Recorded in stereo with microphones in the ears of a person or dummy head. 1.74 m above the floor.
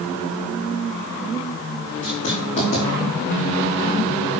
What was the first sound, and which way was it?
Writing, 35° left (ahead or behind).